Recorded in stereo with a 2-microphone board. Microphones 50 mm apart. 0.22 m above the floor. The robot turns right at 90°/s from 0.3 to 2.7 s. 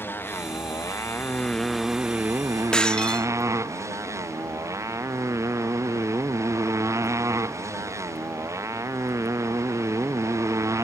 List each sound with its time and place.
0.0 s a motorcycle: 45° left; by 10.8 s 95° right
2.7 s breaking glass: 15° left (ahead or behind)